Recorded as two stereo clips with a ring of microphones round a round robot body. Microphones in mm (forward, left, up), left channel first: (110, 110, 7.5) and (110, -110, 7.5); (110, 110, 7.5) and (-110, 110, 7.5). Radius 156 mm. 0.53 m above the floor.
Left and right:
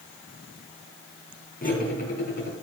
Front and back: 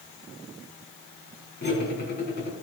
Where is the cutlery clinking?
40° left, 3 m.